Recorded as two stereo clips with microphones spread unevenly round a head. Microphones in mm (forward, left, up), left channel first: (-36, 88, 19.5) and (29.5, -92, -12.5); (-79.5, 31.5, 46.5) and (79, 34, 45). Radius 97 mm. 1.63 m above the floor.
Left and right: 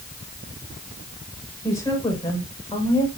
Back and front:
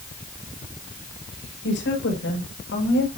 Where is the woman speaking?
175° right, 7 m; by 3.1 s 175° left, 6 m.